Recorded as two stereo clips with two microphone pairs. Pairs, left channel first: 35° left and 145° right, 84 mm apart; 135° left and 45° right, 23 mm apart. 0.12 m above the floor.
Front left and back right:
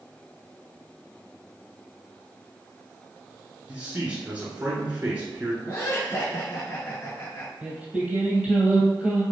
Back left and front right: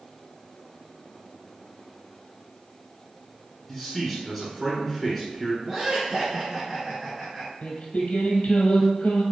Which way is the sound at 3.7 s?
145° right.